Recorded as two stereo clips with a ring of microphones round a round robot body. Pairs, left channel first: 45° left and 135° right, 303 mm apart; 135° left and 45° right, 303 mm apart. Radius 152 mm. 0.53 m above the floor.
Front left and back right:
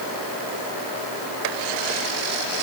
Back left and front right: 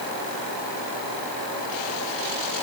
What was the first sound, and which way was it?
Only background noise.